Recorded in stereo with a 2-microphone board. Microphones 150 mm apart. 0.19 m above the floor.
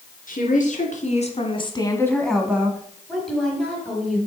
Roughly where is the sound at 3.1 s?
Centre.